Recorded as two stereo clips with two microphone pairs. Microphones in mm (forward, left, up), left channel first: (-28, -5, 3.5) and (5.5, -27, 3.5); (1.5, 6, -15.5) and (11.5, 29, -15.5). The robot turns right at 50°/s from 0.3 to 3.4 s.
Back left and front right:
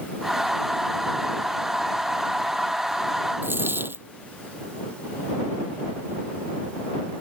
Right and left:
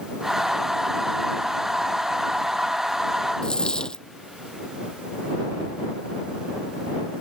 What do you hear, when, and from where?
3.4 s a dropped coin: 55° right